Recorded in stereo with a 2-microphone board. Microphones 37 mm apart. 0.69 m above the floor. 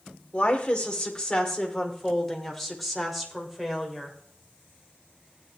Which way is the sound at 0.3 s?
35° left (ahead or behind).